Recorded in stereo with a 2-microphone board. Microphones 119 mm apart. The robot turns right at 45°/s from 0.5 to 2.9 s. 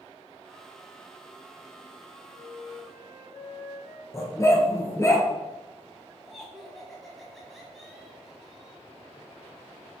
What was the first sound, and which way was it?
A flute, 65° left (ahead or behind).